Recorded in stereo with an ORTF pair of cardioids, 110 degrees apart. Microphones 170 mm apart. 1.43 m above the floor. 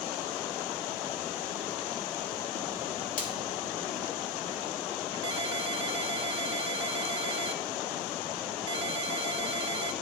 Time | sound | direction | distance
3.2 | frying | 50° left | 2.5 m
5.2 | a ringtone | 35° right | 1.3 m